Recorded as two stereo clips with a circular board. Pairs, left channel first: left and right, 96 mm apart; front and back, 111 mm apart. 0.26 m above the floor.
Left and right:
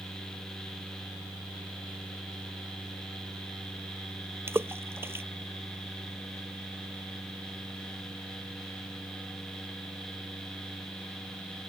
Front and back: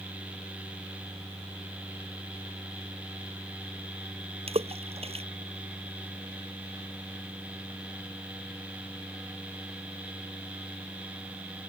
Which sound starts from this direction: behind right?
A splash, at 4.5 s.